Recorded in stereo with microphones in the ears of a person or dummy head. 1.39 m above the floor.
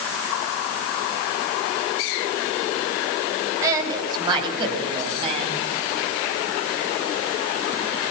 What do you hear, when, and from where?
3.6 s a woman speaking: 20° right (ahead or behind), 6.5 m; by 5.6 s 35° right (ahead or behind), 8 m